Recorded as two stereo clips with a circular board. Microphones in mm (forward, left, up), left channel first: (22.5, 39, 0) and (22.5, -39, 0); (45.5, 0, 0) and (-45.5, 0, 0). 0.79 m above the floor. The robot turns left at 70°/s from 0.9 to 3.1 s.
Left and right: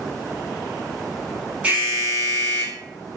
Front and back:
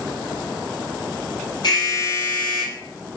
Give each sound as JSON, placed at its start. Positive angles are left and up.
{"t": 1.6, "sound": "an alarm", "azimuth_deg": -20, "distance_m": 3.0}